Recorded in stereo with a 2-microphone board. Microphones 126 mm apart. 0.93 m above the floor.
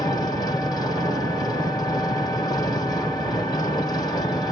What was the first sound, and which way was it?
An engine running, 35° left (ahead or behind).